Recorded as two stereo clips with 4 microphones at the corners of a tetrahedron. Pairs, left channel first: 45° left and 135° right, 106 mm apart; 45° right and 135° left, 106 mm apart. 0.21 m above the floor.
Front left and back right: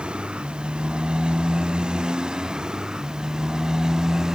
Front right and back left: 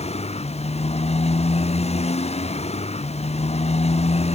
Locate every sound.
0.0 s a motorcycle: 55° right; by 4.4 s 50° right